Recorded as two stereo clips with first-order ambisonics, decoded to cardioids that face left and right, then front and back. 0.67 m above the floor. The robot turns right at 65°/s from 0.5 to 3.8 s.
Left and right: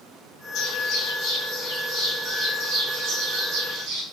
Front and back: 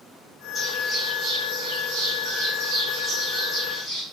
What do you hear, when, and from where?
0.6 s a bird: 70° left, 1.9 m; by 4.0 s 75° right, 1.9 m